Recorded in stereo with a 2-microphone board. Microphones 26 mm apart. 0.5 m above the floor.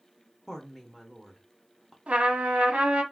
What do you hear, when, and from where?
0.5 s a woman speaking: 5° left (ahead or behind), 0.7 m
2.1 s a trumpet: 60° right (ahead or behind), 0.7 m